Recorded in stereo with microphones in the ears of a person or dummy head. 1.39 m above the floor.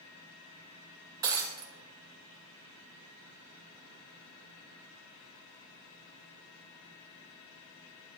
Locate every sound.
1.2 s breaking glass: 15° right (ahead or behind), 0.9 m